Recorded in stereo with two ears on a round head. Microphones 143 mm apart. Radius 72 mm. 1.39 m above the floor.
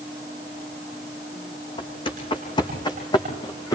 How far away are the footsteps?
About 4.5 m.